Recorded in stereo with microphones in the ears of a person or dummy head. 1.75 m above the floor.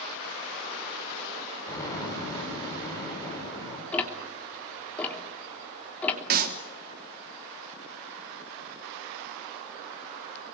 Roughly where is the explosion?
Centre.